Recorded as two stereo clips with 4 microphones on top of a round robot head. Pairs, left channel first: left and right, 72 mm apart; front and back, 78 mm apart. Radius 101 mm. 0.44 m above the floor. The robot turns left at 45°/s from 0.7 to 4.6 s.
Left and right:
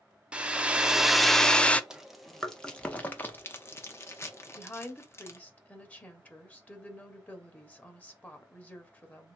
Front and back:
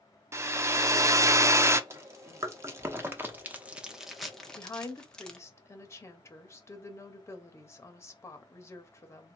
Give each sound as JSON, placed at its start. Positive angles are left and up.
{"t": 0.3, "sound": "a hair dryer", "azimuth_deg": -160, "distance_m": 0.6}
{"t": 1.9, "sound": "chewing", "azimuth_deg": -165, "distance_m": 0.9}
{"t": 4.6, "sound": "a woman speaking", "azimuth_deg": 35, "distance_m": 1.1}